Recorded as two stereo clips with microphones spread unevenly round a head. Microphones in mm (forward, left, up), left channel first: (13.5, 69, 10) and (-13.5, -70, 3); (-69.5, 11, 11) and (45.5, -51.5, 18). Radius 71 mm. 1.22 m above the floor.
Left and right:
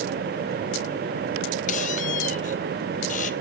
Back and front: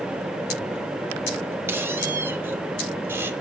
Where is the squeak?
45° left, 1.0 m.